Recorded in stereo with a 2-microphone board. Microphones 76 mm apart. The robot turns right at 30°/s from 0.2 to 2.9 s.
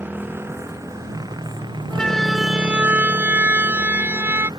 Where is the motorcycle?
155° right; by 4.6 s 75° right.